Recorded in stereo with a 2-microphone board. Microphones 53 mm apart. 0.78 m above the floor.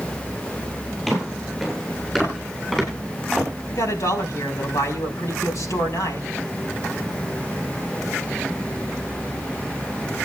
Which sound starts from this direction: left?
A man speaking, at 3.7 s.